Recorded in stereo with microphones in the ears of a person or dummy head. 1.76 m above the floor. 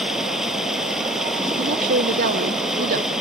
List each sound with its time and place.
0.0 s running water: centre (ahead or behind)
1.6 s a woman speaking: 50° right (ahead or behind)